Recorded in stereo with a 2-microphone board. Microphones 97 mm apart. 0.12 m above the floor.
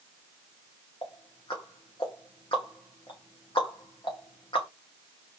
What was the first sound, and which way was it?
Ticking, 55° left (ahead or behind).